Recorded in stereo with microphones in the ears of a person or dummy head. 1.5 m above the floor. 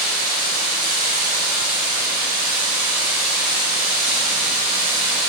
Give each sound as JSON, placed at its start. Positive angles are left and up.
{"t": 0.0, "sound": "running water", "side_deg": -15, "distance_m": 3.0}